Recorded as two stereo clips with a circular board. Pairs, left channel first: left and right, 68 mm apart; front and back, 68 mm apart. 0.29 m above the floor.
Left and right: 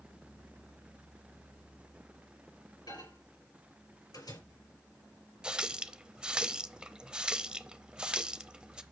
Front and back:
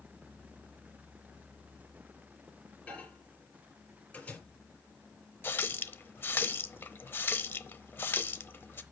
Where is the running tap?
25° right, 0.7 m.